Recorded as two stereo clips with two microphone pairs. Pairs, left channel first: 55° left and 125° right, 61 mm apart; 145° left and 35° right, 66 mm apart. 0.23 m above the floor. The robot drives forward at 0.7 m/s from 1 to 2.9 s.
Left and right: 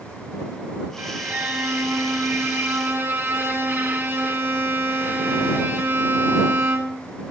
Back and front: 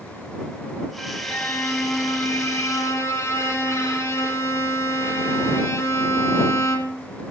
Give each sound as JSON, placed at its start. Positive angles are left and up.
{"t": 1.0, "sound": "a violin", "azimuth_deg": -140, "distance_m": 1.0}